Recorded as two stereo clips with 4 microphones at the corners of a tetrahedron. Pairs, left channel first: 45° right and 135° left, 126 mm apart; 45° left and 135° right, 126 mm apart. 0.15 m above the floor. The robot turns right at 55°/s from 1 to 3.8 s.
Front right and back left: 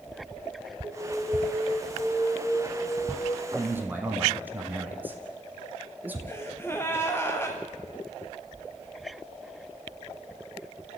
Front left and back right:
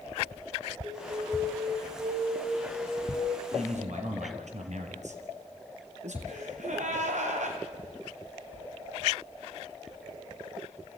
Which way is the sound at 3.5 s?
165° right.